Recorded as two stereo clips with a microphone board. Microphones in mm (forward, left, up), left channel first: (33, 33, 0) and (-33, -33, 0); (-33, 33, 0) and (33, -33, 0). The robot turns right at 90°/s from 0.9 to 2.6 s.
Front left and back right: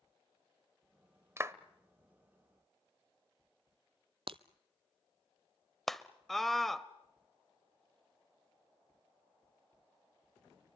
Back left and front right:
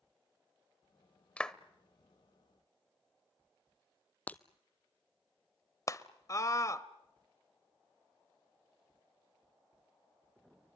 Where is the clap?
160° right, 0.7 m; by 1.6 s 145° right, 0.7 m.